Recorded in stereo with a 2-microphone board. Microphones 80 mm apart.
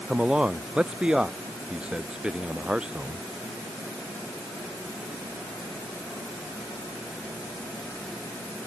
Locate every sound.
0.1 s a man speaking: 10° right (ahead or behind)